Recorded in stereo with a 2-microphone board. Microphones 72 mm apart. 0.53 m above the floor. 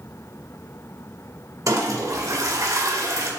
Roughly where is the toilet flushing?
Right.